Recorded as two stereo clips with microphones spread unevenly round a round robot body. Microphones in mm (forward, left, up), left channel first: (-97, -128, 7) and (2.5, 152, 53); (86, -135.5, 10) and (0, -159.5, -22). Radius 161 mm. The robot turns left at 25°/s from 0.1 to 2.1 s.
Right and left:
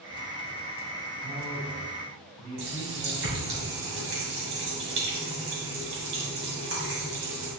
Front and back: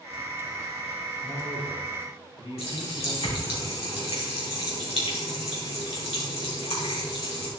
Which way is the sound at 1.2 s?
10° left.